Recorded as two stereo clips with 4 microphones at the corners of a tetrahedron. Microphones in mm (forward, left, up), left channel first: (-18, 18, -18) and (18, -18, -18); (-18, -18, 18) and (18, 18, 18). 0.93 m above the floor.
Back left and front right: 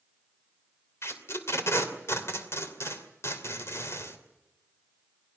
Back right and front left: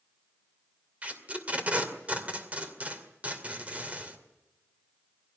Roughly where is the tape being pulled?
Left.